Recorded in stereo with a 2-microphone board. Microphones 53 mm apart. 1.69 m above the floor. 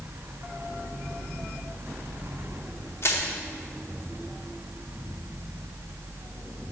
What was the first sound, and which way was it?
Crushing, 55° left (ahead or behind).